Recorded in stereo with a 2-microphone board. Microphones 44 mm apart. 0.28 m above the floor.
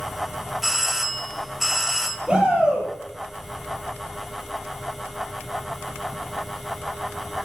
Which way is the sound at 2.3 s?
25° right (ahead or behind).